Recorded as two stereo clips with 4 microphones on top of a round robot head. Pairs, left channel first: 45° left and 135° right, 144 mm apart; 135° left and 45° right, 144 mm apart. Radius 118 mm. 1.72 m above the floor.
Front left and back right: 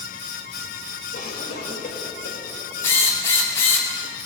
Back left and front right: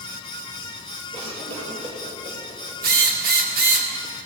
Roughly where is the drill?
Ahead right.